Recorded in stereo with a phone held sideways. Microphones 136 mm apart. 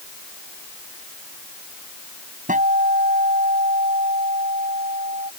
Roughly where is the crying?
I don't hear crying.